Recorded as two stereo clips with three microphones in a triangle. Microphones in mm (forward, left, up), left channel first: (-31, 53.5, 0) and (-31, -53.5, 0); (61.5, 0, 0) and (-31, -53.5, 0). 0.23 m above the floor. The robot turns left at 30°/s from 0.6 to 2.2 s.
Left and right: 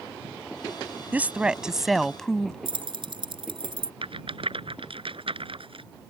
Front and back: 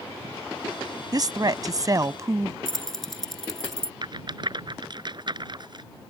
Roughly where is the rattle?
Right.